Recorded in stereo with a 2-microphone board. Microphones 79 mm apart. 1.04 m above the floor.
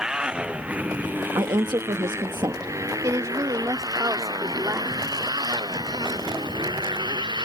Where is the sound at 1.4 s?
65° right (ahead or behind).